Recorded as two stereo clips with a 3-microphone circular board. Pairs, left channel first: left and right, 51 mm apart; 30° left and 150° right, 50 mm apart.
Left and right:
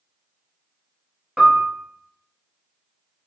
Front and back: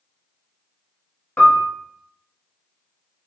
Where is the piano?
30° right, 0.9 m.